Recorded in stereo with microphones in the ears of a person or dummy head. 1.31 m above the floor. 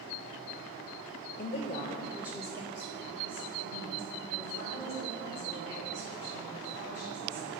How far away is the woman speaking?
About 0.6 m.